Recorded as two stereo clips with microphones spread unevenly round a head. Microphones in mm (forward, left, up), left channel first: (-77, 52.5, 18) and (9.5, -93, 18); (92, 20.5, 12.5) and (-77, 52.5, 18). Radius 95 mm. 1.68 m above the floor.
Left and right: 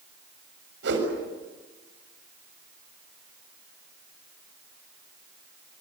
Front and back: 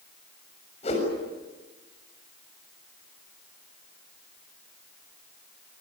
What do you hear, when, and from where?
0.8 s a whoosh: 75° right, 7 m